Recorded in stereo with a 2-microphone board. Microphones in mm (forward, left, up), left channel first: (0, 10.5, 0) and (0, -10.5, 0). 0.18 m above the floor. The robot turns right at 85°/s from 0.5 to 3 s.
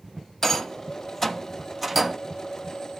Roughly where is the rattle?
Left.